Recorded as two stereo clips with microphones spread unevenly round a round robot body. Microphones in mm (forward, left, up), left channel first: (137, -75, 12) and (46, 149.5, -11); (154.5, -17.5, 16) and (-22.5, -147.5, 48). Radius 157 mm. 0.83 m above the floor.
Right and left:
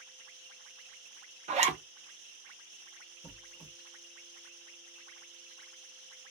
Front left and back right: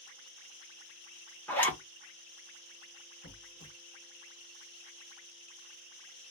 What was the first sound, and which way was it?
A zipper, 100° left.